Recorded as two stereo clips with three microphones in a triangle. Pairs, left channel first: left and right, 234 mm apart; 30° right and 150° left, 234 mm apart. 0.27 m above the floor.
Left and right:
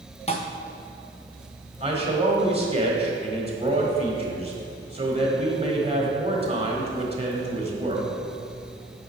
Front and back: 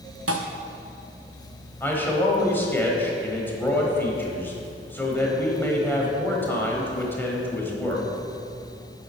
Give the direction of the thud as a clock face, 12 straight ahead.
7 o'clock.